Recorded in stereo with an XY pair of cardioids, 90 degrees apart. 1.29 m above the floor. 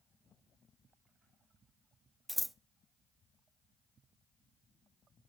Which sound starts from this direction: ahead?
Scissors, at 2.3 s.